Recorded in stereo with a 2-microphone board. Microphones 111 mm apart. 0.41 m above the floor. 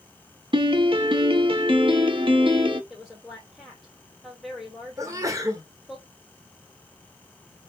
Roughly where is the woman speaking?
Centre.